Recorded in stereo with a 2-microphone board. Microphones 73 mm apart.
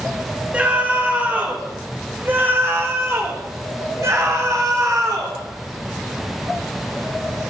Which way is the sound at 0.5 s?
20° right (ahead or behind).